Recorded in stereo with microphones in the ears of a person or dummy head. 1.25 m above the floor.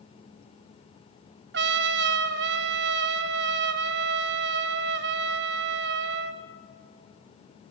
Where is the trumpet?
50° right (ahead or behind), 0.7 m.